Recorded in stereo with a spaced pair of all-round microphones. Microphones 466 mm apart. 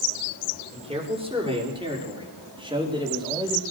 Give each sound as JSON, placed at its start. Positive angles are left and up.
{"t": 0.7, "sound": "a man speaking", "side_deg": -10, "distance_m": 5.0}